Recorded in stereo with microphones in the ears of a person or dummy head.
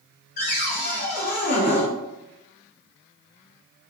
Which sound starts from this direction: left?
A cupboard door, at 0.4 s.